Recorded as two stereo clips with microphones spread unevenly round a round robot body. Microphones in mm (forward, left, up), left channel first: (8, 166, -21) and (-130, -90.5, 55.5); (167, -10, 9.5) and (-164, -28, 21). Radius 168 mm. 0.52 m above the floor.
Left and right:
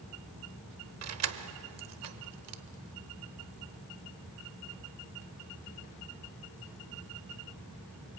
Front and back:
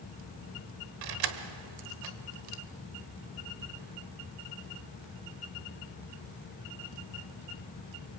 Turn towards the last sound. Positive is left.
turn(degrees=-155)